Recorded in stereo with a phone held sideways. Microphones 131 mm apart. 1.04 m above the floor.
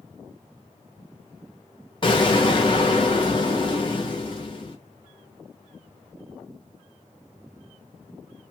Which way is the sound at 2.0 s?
35° left (ahead or behind).